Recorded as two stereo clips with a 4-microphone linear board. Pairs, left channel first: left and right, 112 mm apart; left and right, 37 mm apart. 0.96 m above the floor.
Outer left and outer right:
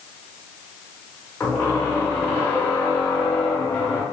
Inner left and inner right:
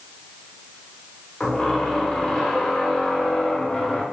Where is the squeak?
20° left (ahead or behind), 0.7 m.